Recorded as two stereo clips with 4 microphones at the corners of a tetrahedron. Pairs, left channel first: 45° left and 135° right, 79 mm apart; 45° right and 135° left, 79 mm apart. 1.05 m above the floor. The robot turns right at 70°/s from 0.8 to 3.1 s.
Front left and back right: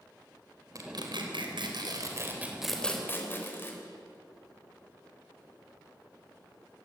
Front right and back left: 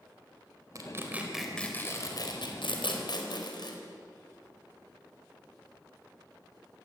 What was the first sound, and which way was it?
Tearing paper, straight behind.